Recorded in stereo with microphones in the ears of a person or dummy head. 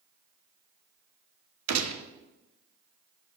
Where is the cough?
I don't hear a cough.